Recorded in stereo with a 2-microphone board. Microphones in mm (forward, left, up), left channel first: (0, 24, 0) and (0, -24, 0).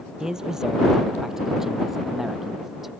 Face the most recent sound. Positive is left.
turn(degrees=-5)  # may be behind; listen again after turning